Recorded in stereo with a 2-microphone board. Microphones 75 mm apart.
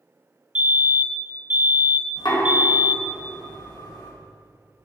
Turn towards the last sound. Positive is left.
turn(degrees=75)  # may be behind; listen again after turning